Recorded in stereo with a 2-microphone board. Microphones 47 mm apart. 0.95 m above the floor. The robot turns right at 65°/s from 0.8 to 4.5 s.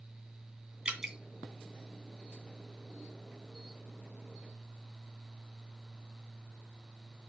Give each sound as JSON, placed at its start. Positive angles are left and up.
{"t": 0.8, "sound": "dripping", "side_deg": -15, "distance_m": 2.5}